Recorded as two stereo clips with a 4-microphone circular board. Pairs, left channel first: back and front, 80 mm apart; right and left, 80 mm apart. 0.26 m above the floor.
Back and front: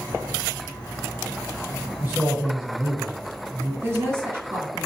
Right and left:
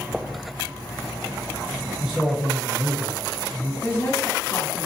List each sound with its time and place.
2.0 s a man speaking: 15° left, 1.2 m
3.8 s a woman speaking: 45° right, 2 m